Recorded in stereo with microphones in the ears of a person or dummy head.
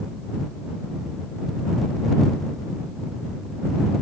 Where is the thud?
I don't hear a thud.